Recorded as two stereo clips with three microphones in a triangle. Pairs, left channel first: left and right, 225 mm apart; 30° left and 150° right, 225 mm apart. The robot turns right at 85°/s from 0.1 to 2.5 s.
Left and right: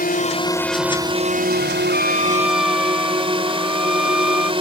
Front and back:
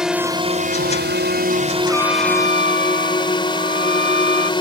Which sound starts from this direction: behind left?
A drone, at 0.0 s.